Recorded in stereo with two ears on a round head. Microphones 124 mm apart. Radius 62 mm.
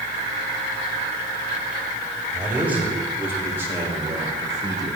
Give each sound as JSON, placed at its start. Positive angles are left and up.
{"t": 2.3, "sound": "a man speaking", "side_deg": -10, "distance_m": 4.0}